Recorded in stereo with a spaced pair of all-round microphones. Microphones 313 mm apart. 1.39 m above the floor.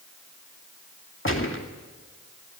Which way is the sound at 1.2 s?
40° left (ahead or behind).